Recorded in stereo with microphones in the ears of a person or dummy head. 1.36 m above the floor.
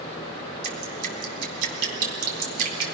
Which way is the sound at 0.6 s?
55° right (ahead or behind).